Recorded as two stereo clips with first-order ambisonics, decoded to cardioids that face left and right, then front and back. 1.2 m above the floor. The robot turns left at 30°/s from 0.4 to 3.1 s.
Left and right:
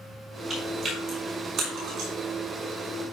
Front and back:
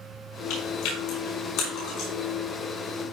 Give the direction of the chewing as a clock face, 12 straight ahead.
12 o'clock.